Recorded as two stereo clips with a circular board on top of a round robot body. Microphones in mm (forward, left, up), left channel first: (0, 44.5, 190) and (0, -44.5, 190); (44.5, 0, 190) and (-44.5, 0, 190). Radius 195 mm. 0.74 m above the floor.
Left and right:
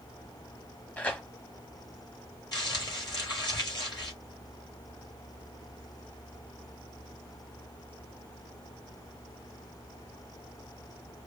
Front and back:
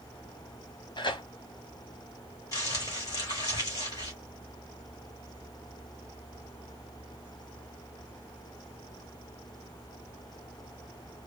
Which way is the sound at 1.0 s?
20° left.